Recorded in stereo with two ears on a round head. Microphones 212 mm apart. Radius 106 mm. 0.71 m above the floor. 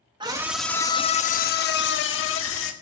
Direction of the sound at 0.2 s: 20° right (ahead or behind).